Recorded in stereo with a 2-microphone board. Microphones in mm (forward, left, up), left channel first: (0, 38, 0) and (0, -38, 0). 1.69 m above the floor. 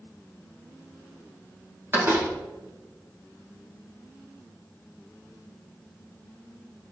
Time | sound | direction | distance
1.9 | a door slam | 30° right (ahead or behind) | 2.5 m